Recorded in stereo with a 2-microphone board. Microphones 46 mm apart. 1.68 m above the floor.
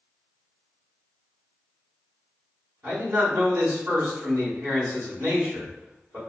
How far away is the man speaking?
About 1.6 m.